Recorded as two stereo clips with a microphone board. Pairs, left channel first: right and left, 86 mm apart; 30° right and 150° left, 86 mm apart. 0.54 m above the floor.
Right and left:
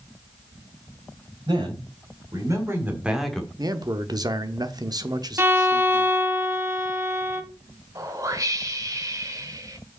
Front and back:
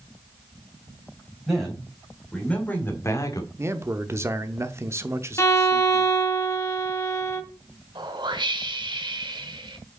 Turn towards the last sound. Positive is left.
turn(degrees=140)